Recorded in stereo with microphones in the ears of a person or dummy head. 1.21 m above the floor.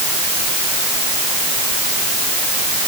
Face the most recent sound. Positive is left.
No sound to turn to.